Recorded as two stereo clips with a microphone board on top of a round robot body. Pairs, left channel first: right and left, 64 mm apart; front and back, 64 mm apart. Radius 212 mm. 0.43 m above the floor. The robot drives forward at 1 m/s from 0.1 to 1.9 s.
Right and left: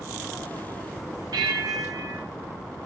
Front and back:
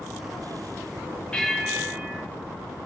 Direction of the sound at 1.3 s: 75° left.